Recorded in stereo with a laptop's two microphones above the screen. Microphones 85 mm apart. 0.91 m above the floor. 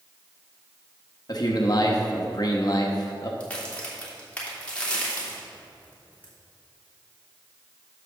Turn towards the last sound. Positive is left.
turn(degrees=15)  # may be behind; listen again after turning